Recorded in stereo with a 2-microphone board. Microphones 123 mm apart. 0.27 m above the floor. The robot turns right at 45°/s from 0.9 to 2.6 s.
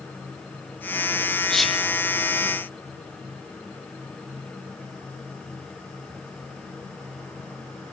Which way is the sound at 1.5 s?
5° left (ahead or behind).